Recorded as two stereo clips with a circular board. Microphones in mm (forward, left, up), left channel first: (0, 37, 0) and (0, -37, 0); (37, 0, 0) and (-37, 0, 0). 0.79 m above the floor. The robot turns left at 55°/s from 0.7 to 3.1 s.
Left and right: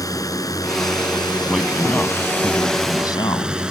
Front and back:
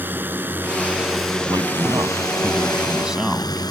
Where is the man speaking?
170° right; by 3.6 s 100° left.